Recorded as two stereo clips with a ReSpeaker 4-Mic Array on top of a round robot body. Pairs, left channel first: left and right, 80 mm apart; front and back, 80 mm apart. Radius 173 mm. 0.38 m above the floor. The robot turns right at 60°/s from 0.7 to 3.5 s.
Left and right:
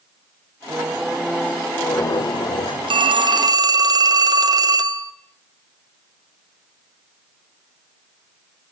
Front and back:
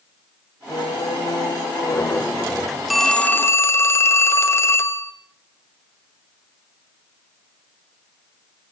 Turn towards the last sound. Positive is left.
turn(degrees=-55)